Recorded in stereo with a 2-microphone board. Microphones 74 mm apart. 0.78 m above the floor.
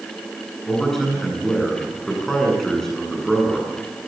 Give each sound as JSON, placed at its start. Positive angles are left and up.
{"t": 0.7, "sound": "a man speaking", "side_deg": 5, "distance_m": 9.5}